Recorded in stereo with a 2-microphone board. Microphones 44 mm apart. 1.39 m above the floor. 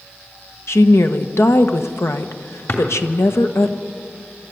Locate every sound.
0.7 s a woman speaking: 85° left, 1.3 m
2.7 s a drawer: 60° left (ahead or behind), 3 m